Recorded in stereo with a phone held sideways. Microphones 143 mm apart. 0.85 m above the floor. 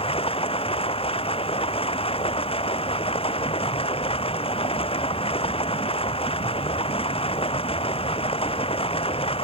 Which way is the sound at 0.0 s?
40° left (ahead or behind).